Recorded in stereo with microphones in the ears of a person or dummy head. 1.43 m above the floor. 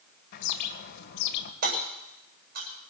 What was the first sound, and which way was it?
A bird, 50° left (ahead or behind).